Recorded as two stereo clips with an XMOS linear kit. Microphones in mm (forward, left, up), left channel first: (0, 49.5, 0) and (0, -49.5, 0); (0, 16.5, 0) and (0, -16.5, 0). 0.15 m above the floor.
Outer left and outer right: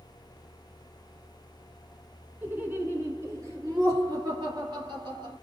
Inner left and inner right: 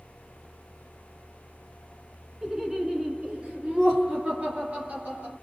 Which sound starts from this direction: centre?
Laughter, at 2.4 s.